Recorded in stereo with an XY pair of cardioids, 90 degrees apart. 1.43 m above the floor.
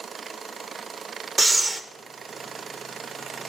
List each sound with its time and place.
1.4 s breathing: 25° right, 0.6 m